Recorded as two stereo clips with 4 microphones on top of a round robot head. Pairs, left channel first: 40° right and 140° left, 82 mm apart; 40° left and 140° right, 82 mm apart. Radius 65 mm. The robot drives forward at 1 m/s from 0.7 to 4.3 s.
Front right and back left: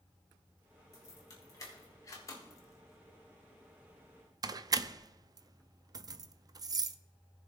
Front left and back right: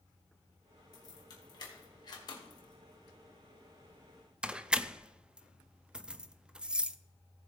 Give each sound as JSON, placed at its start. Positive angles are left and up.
{"t": 0.9, "sound": "keys jangling", "azimuth_deg": 5, "distance_m": 3.0}